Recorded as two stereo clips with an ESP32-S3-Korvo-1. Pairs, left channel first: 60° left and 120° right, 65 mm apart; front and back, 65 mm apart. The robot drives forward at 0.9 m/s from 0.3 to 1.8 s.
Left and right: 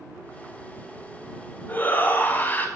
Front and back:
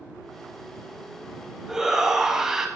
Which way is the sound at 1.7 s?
95° left.